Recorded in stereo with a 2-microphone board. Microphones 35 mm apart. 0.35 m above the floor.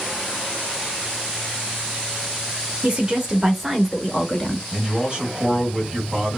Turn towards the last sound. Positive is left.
turn(degrees=-30)  # may be behind; listen again after turning